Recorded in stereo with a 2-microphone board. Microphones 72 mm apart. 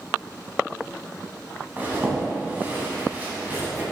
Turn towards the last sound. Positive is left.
turn(degrees=-25)  # may be behind; listen again after turning